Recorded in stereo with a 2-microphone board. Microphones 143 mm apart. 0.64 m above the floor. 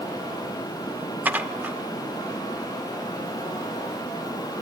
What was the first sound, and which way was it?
Dishes clattering, 10° right (ahead or behind).